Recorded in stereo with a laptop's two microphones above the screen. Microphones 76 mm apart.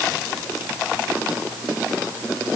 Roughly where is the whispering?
No whispering in this recording.